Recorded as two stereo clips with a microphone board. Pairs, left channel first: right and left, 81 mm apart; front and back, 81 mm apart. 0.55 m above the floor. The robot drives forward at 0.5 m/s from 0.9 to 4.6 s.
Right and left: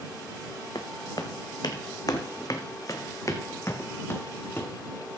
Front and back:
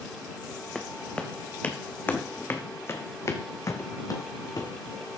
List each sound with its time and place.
0.8 s footsteps: 80° right, 1.4 m; by 4.7 s 30° right, 1.3 m